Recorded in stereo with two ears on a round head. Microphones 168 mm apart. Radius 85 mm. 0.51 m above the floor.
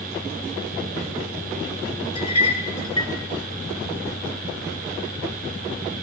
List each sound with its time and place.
2.1 s a clink: 25° left (ahead or behind), 0.9 m